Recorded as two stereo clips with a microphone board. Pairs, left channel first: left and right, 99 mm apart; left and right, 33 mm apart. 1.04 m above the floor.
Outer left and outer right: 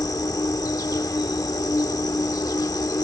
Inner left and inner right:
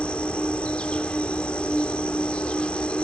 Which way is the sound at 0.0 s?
35° left (ahead or behind).